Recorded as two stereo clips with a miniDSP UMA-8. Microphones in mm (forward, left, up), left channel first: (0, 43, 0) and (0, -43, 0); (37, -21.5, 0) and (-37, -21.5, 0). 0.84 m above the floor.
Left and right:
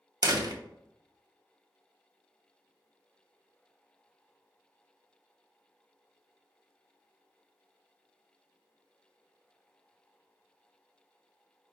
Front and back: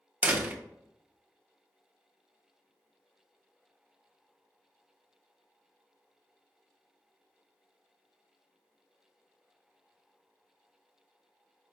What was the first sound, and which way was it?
A door slam, 115° right.